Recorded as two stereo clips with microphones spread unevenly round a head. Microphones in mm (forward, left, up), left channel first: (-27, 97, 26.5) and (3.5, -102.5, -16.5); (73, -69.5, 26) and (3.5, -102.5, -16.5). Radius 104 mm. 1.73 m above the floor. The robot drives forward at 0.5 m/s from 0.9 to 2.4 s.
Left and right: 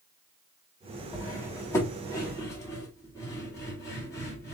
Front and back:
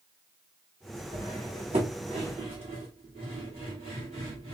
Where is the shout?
I don't hear a shout.